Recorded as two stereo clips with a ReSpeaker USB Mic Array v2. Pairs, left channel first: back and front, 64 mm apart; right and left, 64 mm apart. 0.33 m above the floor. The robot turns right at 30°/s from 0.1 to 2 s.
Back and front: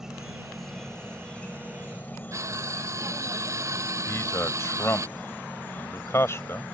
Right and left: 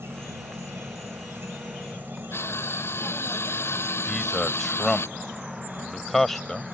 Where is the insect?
80° left; by 6.7 s 135° left.